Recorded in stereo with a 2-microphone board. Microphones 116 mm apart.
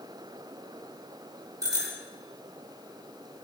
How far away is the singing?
I don't hear singing.